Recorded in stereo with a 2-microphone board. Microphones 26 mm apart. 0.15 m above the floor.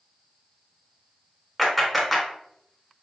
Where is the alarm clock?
I don't hear an alarm clock.